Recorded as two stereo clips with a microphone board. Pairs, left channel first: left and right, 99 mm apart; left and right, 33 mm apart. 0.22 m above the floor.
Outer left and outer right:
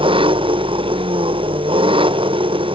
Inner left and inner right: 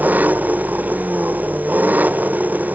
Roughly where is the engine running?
Right.